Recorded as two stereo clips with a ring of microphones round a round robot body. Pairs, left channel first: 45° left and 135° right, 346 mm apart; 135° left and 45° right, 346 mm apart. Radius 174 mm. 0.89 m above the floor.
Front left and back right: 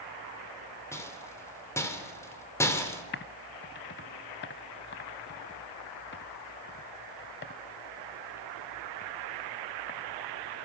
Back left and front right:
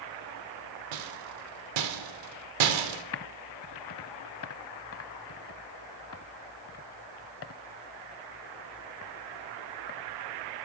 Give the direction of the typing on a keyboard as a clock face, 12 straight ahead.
9 o'clock.